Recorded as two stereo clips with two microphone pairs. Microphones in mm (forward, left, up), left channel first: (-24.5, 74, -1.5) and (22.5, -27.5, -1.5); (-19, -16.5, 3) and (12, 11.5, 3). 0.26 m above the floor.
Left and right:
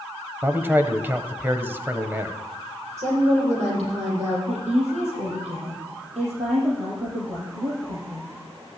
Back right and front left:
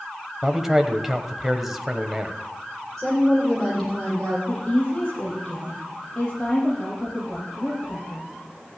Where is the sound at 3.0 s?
55° right, 8 m.